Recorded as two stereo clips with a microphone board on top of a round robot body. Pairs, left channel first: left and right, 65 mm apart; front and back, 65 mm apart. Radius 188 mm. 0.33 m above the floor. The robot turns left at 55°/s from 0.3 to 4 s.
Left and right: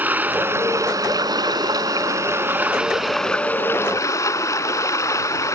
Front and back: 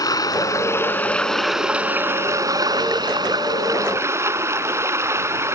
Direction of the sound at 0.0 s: 25° right.